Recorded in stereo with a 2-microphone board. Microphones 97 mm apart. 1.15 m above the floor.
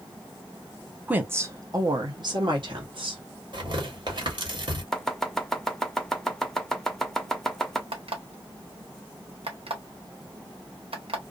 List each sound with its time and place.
1.1 s a woman speaking: 15° right (ahead or behind), 0.6 m; by 3.2 s 60° right (ahead or behind), 1.4 m
3.5 s tearing paper: 55° right (ahead or behind), 1.4 m
4.9 s chopping: 5° left (ahead or behind), 0.6 m
7.9 s an alarm clock: 75° right (ahead or behind), 1.1 m